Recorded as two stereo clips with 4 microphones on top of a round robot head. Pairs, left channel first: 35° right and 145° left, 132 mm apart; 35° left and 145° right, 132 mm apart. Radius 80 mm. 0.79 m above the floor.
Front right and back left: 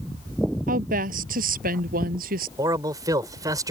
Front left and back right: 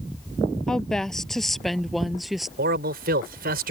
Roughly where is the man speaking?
Behind right.